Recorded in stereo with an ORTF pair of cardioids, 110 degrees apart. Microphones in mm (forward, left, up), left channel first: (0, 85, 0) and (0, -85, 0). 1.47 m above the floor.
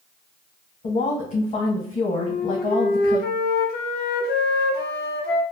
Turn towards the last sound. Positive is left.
turn(degrees=65)